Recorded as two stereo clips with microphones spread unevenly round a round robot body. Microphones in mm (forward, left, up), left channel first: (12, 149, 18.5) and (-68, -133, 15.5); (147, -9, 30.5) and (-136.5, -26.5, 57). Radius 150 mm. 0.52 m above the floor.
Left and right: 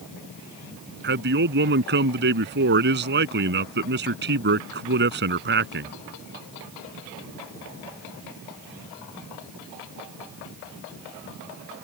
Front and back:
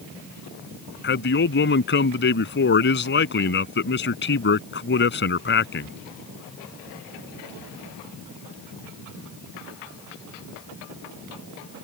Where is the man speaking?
50° right.